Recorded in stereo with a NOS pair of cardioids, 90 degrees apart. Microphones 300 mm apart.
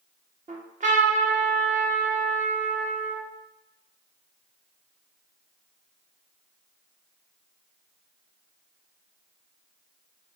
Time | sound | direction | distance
0.5 | a trumpet | 25° right | 0.9 m